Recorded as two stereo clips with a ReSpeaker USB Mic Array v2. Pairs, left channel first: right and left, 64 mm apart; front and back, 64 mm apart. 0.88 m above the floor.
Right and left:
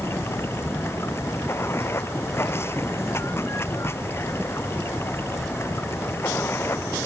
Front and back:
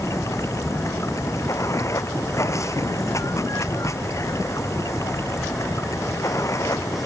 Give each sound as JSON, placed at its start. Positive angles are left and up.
{"t": 0.0, "sound": "running water", "azimuth_deg": -40}